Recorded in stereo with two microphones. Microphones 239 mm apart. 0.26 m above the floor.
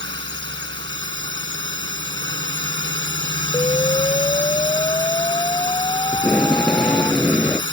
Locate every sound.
0.0 s a drone: 50° right (ahead or behind)
3.5 s an explosion: 20° left (ahead or behind)
6.1 s tape being pulled: 5° left (ahead or behind)